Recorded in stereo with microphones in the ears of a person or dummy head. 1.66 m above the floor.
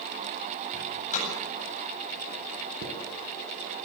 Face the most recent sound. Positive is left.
turn(degrees=-55)  # may be behind; listen again after turning